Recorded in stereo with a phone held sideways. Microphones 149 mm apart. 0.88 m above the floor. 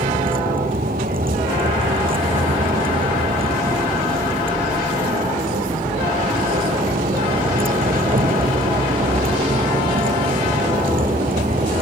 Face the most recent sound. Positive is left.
turn(degrees=-70)  # may be behind; listen again after turning